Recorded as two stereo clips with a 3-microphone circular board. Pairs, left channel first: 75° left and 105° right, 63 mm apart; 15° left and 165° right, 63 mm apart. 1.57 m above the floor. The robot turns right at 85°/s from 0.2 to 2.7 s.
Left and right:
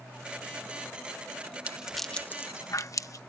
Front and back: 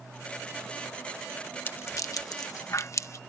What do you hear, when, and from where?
1.7 s a rattle: 40° right; by 3.2 s 50° left